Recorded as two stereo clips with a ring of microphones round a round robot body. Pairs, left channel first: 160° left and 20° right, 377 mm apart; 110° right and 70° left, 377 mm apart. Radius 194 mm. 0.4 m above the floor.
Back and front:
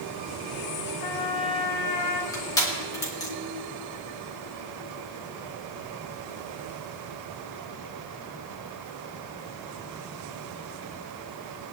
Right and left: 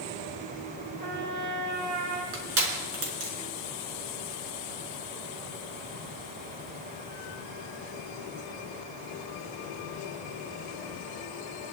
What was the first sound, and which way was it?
A trumpet, 135° left.